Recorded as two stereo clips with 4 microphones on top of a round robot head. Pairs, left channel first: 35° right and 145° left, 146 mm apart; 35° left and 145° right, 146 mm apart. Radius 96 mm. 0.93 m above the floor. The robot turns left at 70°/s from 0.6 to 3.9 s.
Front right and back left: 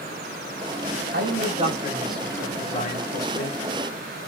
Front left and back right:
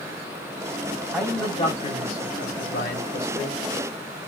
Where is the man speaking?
125° left, 5.5 m; by 3.6 s 45° right, 5.5 m.